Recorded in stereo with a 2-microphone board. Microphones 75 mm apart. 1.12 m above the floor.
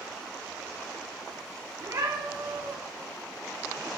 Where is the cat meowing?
80° right, 2.5 m.